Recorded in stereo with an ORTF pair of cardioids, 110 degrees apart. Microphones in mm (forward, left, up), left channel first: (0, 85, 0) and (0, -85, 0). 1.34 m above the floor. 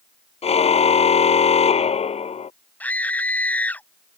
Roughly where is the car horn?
Ahead left.